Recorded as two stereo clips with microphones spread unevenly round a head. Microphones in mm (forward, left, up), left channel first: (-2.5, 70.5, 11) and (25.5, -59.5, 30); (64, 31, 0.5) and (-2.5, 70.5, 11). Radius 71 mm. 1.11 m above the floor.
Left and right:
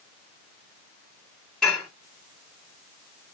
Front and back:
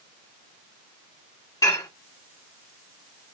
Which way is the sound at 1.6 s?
15° left.